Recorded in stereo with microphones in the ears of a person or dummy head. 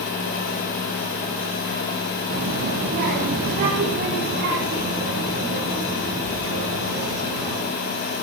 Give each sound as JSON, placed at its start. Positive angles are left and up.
{"t": 2.3, "sound": "a child speaking", "side_deg": -40, "distance_m": 1.0}